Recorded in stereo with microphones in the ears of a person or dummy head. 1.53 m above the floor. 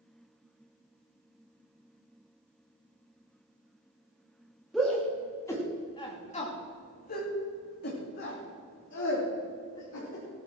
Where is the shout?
Centre (ahead or behind), 2.5 m; by 10.2 s 70° left (ahead or behind), 4 m.